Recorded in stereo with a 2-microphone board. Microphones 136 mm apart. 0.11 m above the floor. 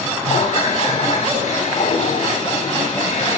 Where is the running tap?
55° left (ahead or behind), 8 m.